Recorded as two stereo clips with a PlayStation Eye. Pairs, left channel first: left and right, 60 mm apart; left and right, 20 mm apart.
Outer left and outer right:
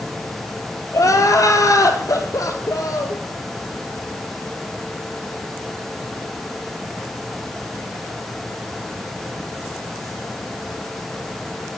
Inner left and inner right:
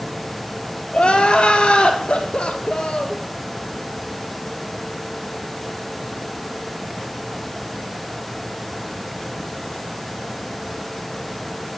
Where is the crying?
70° left (ahead or behind), 1.4 m.